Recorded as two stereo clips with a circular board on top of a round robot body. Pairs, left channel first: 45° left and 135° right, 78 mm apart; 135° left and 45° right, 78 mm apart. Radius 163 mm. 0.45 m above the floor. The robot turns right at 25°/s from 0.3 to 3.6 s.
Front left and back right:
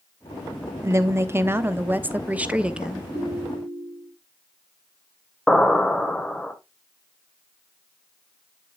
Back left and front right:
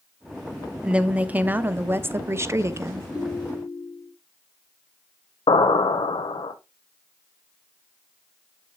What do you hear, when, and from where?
0.8 s a woman speaking: 115° right, 1.0 m; by 3.0 s 60° right, 1.0 m
3.1 s a ringtone: 155° left, 4.5 m; by 4.1 s 170° left, 4.5 m
5.5 s an explosion: 130° left, 0.9 m